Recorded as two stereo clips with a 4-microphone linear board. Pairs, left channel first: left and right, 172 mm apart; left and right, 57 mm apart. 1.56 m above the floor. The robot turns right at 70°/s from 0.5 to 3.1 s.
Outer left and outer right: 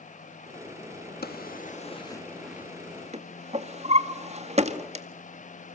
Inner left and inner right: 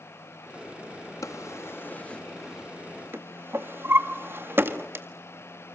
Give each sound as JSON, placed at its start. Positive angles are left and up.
{"t": 1.2, "sound": "a drawer", "side_deg": 70, "distance_m": 1.8}